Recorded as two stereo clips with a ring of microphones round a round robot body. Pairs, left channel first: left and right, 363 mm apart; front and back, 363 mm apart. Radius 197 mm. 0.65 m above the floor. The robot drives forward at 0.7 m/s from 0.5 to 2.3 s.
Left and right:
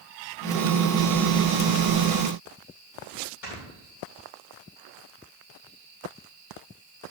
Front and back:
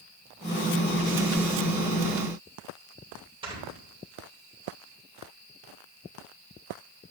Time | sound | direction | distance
3.4 | snoring | 105° left | 3 m